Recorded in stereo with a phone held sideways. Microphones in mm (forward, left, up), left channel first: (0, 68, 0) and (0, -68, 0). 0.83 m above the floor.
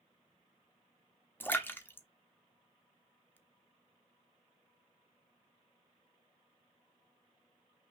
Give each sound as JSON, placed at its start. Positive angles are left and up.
{"t": 1.4, "sound": "a splash", "side_deg": 15, "distance_m": 0.7}